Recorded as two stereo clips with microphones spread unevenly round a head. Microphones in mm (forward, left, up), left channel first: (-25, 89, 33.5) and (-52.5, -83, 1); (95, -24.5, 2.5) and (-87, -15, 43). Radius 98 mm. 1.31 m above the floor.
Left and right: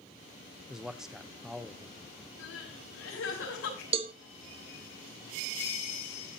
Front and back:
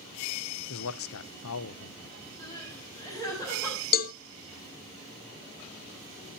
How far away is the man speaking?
About 0.7 m.